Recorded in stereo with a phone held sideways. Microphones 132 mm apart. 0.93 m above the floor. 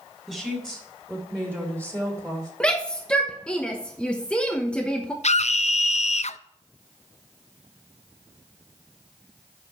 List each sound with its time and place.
0.3 s a woman speaking: 5° right (ahead or behind), 3 m; by 2.5 s 30° right (ahead or behind), 2.5 m
2.6 s a shout: 10° left (ahead or behind), 0.9 m
5.2 s a scream: 60° left (ahead or behind), 0.6 m